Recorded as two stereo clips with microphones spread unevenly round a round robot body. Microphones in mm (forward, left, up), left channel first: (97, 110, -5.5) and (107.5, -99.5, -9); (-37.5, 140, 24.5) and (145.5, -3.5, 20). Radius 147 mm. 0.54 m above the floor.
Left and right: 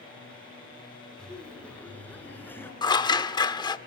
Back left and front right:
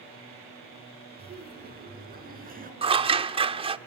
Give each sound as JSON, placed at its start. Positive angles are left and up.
{"t": 1.2, "sound": "laughter", "azimuth_deg": 5, "distance_m": 5.0}
{"t": 2.8, "sound": "scissors", "azimuth_deg": 25, "distance_m": 1.1}